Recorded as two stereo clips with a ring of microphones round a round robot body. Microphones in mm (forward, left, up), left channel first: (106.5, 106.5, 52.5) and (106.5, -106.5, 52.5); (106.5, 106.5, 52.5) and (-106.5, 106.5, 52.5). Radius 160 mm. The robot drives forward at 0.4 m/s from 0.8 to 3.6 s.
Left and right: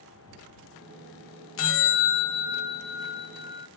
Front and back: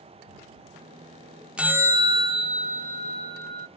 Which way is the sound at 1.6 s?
95° left.